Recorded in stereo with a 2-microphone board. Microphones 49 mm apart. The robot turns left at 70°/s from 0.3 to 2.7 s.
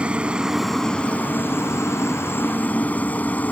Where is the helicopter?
155° right; by 3.5 s 35° left.